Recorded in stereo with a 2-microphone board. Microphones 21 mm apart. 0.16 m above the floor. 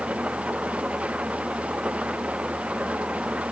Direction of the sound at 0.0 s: 70° right (ahead or behind).